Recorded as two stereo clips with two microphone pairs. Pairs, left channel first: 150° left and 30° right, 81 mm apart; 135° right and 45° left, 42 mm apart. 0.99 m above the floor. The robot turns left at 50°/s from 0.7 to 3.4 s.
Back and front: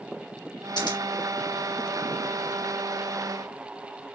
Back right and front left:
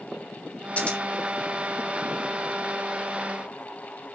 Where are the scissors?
170° left, 3 m; by 1.0 s 160° left, 3 m.